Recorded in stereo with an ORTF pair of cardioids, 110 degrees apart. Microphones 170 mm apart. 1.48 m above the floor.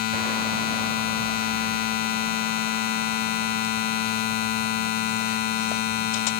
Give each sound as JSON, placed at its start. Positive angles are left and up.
{"t": 0.0, "sound": "a machine running", "azimuth_deg": 65, "distance_m": 1.3}